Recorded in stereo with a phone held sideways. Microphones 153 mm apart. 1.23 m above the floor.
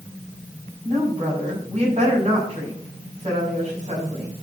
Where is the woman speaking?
50° right (ahead or behind), 7.5 m.